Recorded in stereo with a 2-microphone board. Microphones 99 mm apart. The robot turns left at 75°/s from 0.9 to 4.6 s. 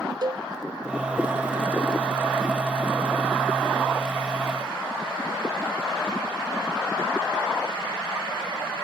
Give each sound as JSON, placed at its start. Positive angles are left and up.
{"t": 0.2, "sound": "a cowbell", "side_deg": -45}